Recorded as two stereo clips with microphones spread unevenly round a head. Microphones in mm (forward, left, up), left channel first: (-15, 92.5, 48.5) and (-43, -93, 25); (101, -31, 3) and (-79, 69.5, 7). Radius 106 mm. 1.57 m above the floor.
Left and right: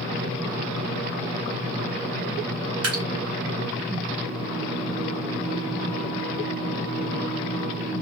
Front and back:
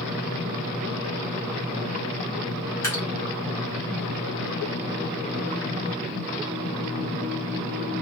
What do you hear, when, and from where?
2.8 s dripping: 105° right, 1.0 m